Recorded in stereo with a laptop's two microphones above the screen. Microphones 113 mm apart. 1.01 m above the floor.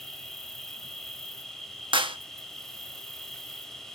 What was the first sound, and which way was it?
An insect, 5° left (ahead or behind).